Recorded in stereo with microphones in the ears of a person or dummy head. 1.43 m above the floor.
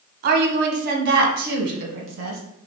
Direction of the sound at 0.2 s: 55° right (ahead or behind).